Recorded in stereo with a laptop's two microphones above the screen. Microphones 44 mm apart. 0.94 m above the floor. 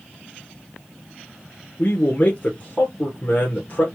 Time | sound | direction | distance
1.8 | a man speaking | 35° left (ahead or behind) | 1.2 m